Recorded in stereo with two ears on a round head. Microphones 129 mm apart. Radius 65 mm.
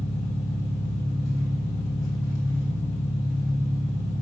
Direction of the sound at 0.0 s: 25° left (ahead or behind).